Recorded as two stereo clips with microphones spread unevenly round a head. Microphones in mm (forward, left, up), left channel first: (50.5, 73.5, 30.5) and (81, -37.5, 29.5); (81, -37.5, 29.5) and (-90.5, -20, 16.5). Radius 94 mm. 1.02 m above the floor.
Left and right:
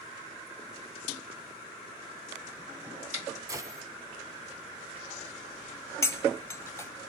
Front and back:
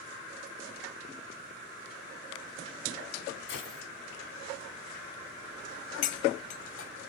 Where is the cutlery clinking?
40° left, 0.7 m.